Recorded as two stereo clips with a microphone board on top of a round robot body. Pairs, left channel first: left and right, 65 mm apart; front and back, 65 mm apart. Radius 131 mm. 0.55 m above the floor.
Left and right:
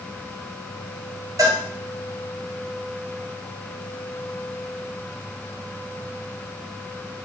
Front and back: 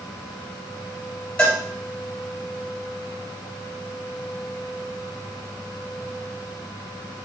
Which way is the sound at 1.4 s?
70° right.